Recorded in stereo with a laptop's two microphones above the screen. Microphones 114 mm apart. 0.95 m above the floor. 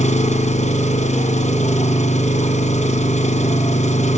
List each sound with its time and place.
0.0 s an engine running: 80° left, 3.5 m